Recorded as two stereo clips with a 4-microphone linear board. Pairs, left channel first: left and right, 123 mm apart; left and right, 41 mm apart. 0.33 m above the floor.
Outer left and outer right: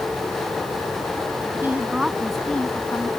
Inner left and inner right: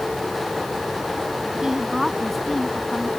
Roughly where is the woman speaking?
Centre.